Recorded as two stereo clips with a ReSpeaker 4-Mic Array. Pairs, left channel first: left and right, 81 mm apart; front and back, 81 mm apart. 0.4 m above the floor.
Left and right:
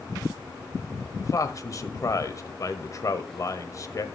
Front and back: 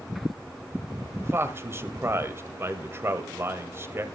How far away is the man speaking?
About 1.7 m.